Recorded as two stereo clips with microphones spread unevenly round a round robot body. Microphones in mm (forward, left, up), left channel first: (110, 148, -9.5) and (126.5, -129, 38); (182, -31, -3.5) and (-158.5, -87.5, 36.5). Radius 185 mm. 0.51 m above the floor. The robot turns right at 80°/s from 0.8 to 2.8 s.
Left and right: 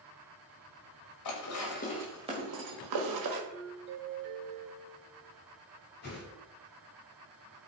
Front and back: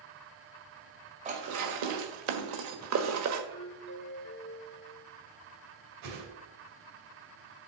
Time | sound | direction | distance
1.2 | dishes clattering | 115° left | 1.5 m
3.5 | a doorbell | 30° right | 3 m
6.0 | a whoosh | 150° left | 2.5 m